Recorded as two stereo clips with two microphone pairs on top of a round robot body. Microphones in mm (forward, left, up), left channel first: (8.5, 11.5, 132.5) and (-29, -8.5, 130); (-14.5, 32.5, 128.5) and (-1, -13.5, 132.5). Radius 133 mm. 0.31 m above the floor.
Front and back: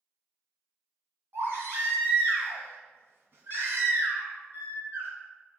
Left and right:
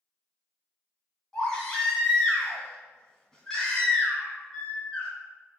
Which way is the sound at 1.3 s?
Straight behind.